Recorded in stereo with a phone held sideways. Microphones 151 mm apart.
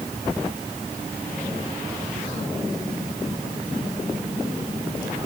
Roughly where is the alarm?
No alarm in this recording.